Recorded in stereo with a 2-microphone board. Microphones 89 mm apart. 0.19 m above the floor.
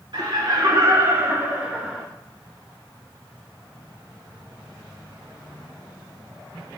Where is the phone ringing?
I don't hear a phone ringing.